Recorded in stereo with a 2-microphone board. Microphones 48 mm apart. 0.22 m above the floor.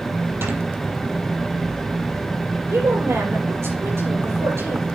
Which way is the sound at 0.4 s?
55° right (ahead or behind).